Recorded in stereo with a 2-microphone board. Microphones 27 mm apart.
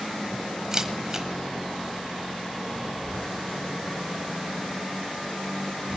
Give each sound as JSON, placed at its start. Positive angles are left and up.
{"t": 0.7, "sound": "a camera shutter", "side_deg": -20, "distance_m": 1.1}